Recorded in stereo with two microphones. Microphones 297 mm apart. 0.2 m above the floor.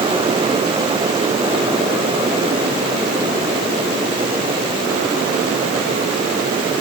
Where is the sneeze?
I don't hear a sneeze.